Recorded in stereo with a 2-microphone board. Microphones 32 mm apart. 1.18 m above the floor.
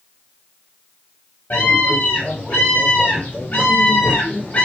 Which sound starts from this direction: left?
A scream, at 1.5 s.